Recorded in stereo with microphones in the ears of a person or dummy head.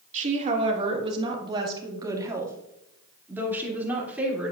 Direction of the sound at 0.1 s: 35° right (ahead or behind).